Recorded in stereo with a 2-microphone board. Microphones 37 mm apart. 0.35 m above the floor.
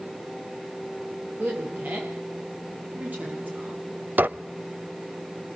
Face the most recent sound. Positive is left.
turn(degrees=-55)  # may be behind; listen again after turning